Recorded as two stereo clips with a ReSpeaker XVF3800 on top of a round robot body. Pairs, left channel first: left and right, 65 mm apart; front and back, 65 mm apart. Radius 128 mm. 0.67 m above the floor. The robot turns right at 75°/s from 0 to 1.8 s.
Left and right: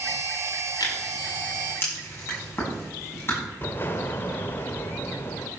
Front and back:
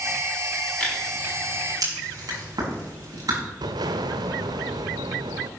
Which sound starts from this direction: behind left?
An explosion, at 3.6 s.